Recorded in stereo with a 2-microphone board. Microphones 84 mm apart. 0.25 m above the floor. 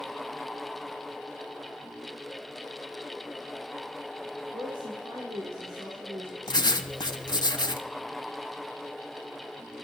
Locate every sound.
4.5 s a woman speaking: 45° right (ahead or behind), 4 m; by 7.5 s 25° right (ahead or behind), 3 m
6.5 s writing: 55° left (ahead or behind), 1.0 m